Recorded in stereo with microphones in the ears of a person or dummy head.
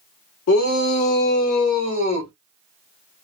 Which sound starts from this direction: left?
A shout, at 0.5 s.